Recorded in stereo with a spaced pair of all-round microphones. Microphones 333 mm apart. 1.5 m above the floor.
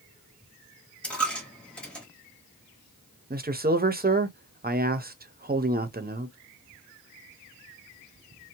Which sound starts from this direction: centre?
A dropped coin, at 1.0 s.